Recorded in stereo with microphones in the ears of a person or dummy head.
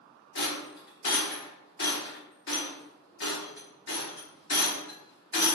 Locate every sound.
0.3 s a rattle: 60° left (ahead or behind), 1.0 m